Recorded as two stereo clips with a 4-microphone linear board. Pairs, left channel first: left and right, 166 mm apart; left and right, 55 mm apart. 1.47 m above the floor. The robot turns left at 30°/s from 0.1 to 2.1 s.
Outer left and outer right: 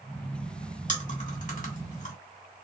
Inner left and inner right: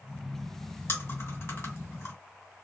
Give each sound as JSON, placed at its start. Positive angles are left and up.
{"t": 0.9, "sound": "chewing", "side_deg": 50, "distance_m": 2.0}